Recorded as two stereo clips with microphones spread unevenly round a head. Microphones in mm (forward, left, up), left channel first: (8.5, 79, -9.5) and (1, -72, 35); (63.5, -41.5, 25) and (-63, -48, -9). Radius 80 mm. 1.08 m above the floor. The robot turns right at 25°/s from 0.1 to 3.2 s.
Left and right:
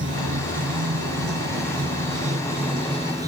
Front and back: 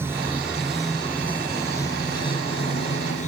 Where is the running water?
105° right; by 3.3 s 25° right.